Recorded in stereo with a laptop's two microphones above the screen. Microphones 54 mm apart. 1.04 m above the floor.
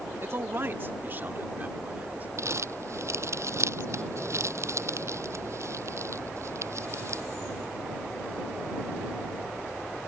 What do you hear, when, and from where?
0.2 s a man speaking: 50° right (ahead or behind); by 2.3 s 30° right (ahead or behind)
2.4 s crumpling: 60° right (ahead or behind)